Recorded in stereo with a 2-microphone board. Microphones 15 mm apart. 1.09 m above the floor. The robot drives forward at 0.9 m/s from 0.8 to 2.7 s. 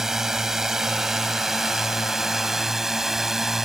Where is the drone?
40° right (ahead or behind); by 3.7 s 35° right (ahead or behind).